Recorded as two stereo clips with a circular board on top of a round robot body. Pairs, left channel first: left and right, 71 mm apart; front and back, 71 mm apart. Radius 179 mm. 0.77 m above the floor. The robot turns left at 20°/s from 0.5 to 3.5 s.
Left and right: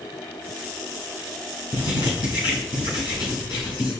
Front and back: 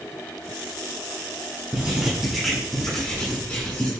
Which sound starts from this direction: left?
Writing, at 1.7 s.